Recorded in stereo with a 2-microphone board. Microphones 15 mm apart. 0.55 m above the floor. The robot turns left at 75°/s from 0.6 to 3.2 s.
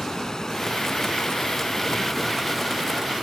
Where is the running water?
130° left, 0.9 m; by 3.2 s 65° right, 0.9 m.